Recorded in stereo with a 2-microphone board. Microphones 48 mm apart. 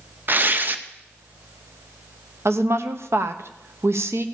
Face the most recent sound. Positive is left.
turn(degrees=-75)  # may be behind; listen again after turning